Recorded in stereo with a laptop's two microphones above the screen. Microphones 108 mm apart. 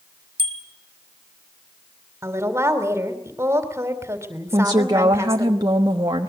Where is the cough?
I don't hear a cough.